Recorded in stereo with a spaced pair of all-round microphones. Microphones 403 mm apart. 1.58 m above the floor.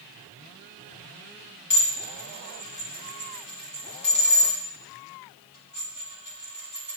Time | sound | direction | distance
1.7 | dishes clattering | 50° left (ahead or behind) | 1.1 m